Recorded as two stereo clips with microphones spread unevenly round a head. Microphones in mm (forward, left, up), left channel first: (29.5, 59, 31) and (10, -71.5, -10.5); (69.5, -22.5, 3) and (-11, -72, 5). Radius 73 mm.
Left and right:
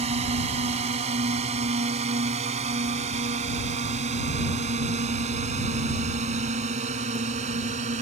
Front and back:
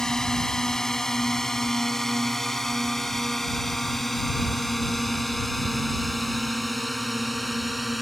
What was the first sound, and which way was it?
A drone, 55° right.